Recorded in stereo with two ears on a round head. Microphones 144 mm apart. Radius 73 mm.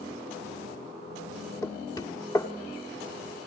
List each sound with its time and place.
1.6 s knocking: 20° left (ahead or behind), 1.3 m